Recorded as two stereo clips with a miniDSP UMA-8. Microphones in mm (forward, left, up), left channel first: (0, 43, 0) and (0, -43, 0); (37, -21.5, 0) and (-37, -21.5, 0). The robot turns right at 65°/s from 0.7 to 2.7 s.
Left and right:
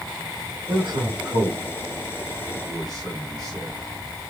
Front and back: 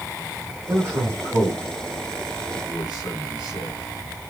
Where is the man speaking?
125° right, 3.5 m; by 4.3 s 5° left, 3.5 m.